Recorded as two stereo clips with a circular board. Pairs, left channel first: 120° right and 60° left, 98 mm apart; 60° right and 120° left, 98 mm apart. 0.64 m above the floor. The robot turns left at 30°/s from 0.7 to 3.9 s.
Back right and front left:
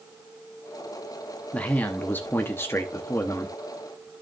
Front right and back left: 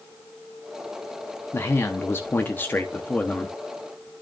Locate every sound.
1.5 s a man speaking: 60° right, 0.8 m; by 3.5 s 120° right, 0.8 m